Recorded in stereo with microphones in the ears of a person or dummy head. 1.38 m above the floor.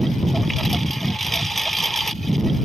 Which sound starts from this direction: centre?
A lawn mower, at 0.0 s.